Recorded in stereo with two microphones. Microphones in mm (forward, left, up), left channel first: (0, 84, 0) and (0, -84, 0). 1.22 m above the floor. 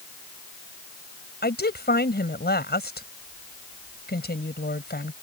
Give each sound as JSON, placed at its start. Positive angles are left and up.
{"t": 1.4, "sound": "a woman speaking", "side_deg": 75}